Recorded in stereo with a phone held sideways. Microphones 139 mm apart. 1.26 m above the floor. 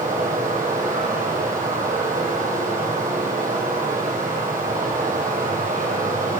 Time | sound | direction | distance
0.0 | running water | 80° right | 8 m